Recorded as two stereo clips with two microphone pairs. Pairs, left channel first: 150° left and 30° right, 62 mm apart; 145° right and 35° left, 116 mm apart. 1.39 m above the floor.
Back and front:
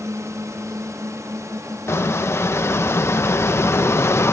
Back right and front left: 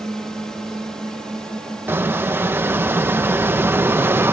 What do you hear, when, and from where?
0.0 s a drone: 60° right
1.9 s a squeak: 105° left